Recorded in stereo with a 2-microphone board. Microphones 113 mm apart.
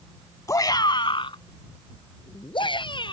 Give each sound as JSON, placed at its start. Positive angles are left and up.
{"t": 0.5, "sound": "a shout", "side_deg": 30}